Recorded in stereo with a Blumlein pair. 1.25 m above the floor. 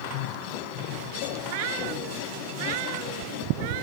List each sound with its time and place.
1.4 s a cat meowing: 50° right